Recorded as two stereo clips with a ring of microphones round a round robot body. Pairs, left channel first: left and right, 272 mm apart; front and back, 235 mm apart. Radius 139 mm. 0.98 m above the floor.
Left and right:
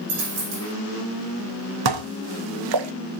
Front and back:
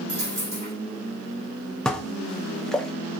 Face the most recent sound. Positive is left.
turn(degrees=-90)